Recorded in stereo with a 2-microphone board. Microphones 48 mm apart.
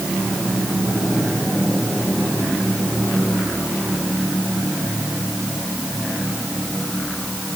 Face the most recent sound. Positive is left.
No sound to turn to.